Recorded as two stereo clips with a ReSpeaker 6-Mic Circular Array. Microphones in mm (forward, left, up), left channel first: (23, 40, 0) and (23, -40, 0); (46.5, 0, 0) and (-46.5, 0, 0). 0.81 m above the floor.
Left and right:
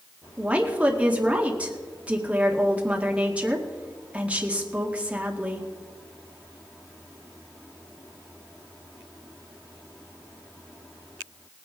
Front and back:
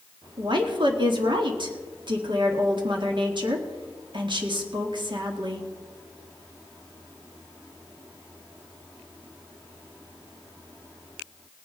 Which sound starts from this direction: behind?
A woman speaking, at 0.4 s.